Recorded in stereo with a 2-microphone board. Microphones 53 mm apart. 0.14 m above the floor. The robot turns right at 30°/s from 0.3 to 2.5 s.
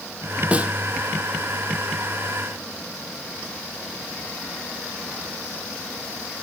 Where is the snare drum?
25° right (ahead or behind), 1.3 m; by 0.7 s 20° right (ahead or behind), 1.3 m.